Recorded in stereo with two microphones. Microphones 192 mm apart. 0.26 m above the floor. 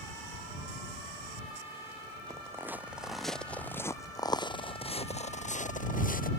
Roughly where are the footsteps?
Centre.